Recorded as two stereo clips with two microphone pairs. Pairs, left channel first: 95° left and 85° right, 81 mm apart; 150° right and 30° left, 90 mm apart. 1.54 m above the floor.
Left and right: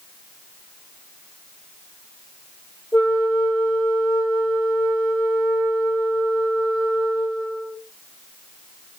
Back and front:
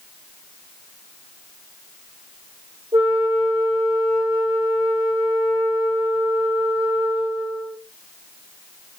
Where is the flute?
85° left, 2 m.